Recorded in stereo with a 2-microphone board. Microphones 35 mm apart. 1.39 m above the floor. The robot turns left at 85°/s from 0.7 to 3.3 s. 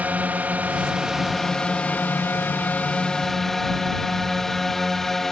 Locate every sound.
0.0 s a drone: 130° right; by 5.3 s 5° left